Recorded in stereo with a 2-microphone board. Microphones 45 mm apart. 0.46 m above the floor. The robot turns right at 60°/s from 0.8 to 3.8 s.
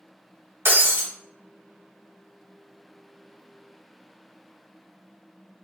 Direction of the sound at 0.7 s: 50° right (ahead or behind).